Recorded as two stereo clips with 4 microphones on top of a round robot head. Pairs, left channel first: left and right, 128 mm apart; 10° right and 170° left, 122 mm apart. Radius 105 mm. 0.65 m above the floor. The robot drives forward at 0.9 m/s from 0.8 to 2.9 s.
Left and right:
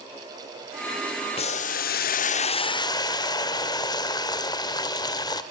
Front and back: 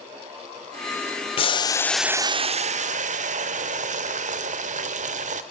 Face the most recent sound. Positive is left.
turn(degrees=150)